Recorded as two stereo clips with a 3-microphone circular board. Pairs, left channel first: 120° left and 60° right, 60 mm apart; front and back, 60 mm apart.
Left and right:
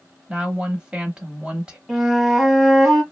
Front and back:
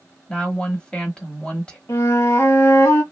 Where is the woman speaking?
35° right, 1.0 m.